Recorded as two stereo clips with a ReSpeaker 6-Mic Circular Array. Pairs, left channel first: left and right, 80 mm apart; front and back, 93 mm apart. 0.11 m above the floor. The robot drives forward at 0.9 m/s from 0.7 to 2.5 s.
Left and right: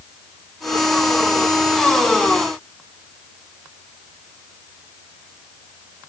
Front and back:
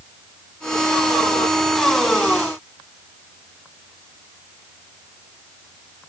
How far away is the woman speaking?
I don't hear a woman speaking.